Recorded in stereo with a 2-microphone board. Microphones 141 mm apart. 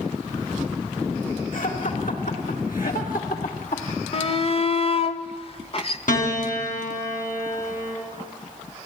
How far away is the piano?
About 4 m.